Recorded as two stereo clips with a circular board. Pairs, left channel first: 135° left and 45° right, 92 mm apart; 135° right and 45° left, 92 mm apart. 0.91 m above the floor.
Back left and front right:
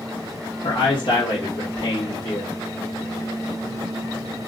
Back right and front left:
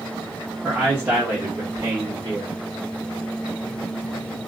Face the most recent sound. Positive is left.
turn(degrees=100)